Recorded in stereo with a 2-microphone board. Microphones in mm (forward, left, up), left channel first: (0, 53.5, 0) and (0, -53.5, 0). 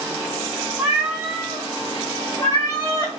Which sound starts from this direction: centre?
A cat meowing, at 0.8 s.